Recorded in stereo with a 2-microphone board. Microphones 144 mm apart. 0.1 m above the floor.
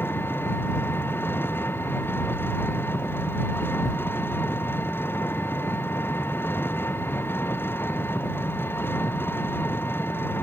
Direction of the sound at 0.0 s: 15° left (ahead or behind).